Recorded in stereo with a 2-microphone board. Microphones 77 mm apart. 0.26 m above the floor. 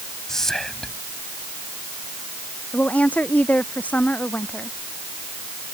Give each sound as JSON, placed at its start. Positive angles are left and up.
{"t": 0.3, "sound": "whispering", "side_deg": 5}
{"t": 2.7, "sound": "a woman speaking", "side_deg": 20}